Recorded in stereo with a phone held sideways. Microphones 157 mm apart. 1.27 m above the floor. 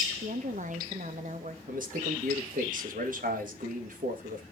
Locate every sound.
0.2 s a woman speaking: 55° right (ahead or behind), 1.1 m
1.7 s a man speaking: 60° right (ahead or behind), 1.8 m